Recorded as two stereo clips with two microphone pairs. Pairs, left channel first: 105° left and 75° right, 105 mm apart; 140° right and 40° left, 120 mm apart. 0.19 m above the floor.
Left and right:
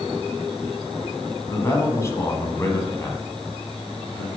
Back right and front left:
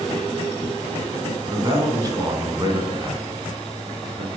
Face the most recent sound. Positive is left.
turn(degrees=60)